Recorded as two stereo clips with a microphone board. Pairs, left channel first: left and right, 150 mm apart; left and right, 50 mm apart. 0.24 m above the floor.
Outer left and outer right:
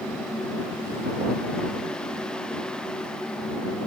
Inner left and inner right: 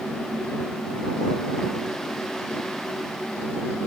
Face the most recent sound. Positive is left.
No sound to turn to.